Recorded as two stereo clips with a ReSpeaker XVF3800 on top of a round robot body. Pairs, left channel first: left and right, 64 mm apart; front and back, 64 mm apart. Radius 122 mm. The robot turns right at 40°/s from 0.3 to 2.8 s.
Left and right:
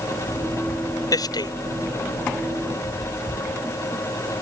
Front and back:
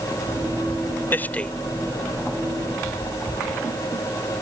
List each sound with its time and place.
1.1 s a man speaking: 60° left; by 1.5 s 80° left